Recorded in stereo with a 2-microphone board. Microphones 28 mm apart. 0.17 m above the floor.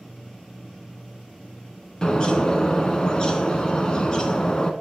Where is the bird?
25° left (ahead or behind), 1.3 m.